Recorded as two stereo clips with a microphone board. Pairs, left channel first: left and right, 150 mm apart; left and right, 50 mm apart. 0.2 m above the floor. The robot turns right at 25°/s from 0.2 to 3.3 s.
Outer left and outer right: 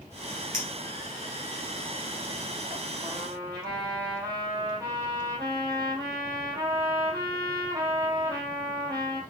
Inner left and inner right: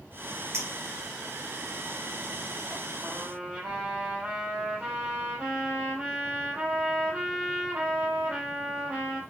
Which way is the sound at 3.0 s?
35° right (ahead or behind).